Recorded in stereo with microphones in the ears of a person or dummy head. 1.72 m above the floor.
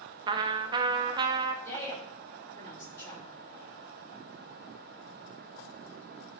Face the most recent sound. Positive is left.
turn(degrees=15)  # may be behind; listen again after turning